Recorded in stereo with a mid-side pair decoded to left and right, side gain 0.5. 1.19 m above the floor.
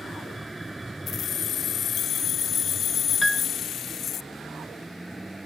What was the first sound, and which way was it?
A vehicle, 10° right.